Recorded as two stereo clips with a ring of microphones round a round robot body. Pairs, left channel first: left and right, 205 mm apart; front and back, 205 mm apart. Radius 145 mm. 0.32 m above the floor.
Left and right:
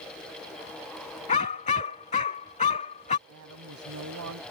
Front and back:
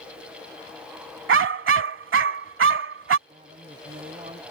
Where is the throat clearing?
No throat clearing in this recording.